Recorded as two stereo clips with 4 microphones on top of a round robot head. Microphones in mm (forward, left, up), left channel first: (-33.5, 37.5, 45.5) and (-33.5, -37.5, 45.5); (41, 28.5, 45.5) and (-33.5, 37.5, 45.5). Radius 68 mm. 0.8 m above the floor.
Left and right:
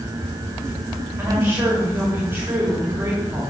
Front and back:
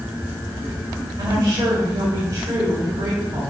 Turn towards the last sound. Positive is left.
turn(degrees=-145)